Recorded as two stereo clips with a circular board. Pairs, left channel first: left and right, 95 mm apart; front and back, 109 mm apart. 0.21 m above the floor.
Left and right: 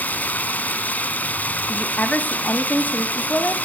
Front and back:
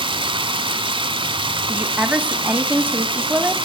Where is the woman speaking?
125° left, 1.1 m.